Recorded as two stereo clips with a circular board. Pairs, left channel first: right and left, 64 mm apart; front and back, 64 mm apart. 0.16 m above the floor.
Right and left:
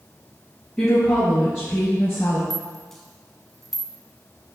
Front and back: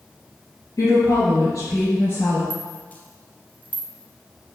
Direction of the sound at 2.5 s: 10° right.